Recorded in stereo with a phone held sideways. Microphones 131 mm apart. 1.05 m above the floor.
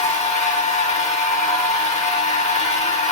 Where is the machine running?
60° left (ahead or behind), 0.9 m.